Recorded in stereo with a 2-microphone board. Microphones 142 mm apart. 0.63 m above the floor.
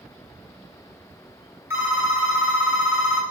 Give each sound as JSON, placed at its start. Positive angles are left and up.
{"t": 1.7, "sound": "a phone ringing", "side_deg": -15, "distance_m": 1.3}